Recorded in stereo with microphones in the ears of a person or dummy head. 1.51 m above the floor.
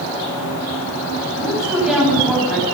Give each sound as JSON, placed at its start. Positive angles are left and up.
{"t": 1.4, "sound": "a woman speaking", "side_deg": -5, "distance_m": 9.5}